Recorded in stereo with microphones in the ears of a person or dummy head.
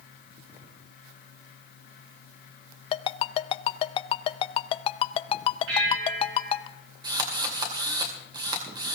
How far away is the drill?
About 2.5 m.